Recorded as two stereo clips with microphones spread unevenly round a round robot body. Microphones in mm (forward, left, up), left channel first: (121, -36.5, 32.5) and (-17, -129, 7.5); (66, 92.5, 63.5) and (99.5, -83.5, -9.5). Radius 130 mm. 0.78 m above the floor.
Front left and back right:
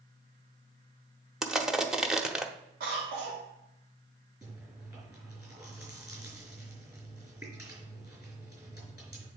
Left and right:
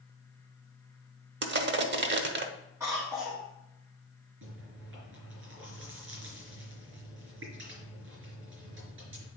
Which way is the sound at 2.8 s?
150° right.